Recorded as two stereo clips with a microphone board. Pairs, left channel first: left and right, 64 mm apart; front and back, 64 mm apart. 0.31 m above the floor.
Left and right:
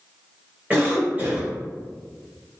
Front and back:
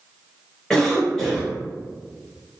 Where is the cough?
70° right, 1.7 m.